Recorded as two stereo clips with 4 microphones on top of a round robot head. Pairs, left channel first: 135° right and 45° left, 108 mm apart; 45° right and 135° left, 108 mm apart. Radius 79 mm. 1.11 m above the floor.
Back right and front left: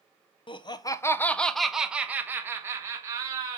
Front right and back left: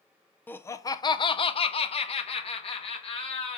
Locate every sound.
0.5 s laughter: 115° right, 0.7 m; by 3.6 s 10° right, 1.7 m